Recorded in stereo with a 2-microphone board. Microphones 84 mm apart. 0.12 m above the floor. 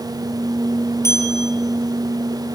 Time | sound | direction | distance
1.0 | a bell | 35° left (ahead or behind) | 3 m